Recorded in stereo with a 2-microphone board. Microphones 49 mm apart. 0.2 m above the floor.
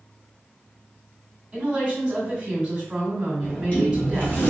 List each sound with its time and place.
1.5 s a woman speaking: 20° right (ahead or behind), 1.7 m
3.4 s a sliding door: 35° left (ahead or behind), 1.9 m